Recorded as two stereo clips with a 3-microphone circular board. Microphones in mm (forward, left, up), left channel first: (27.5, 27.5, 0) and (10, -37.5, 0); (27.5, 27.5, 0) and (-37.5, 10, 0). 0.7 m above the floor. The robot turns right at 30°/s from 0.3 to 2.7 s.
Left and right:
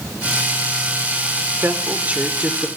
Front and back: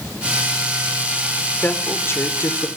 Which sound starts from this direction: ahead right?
A woman speaking, at 1.6 s.